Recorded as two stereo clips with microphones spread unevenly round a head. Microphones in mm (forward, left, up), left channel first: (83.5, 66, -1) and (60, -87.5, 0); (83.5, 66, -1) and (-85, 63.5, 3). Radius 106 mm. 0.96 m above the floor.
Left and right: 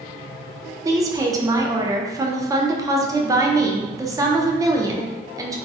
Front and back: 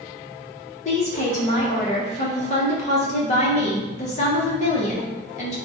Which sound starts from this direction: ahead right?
A woman speaking, at 0.8 s.